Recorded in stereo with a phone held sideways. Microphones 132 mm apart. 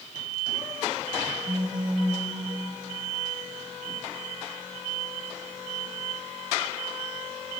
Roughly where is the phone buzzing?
Right.